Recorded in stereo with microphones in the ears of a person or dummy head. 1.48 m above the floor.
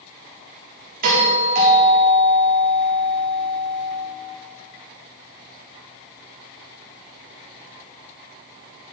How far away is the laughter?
I don't hear laughter.